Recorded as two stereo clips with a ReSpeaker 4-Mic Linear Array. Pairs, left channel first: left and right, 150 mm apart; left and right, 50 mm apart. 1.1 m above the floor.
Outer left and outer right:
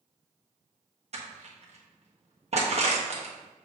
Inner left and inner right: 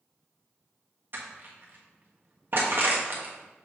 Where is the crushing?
50° right (ahead or behind), 1.3 m.